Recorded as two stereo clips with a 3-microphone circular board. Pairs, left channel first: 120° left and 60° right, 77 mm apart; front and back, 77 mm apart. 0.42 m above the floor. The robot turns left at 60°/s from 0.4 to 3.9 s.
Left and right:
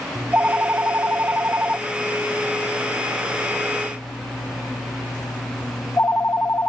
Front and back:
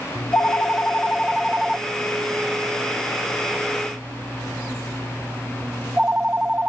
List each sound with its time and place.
0.1 s a phone ringing: 20° right; by 6.7 s 130° left